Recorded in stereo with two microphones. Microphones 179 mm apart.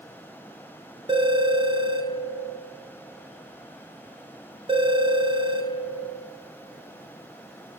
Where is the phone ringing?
30° right (ahead or behind), 1.2 m.